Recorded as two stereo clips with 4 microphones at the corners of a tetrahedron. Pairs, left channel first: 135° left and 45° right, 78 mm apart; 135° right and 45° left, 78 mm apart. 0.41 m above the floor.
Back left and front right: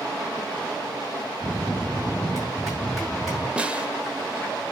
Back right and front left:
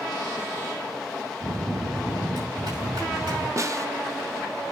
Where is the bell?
45° left, 6 m.